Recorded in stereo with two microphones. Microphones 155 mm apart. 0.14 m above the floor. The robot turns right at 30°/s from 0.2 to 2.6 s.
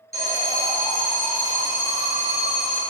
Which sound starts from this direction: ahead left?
An alarm, at 0.1 s.